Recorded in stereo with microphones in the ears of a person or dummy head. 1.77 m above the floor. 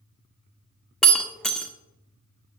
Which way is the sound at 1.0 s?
5° left (ahead or behind).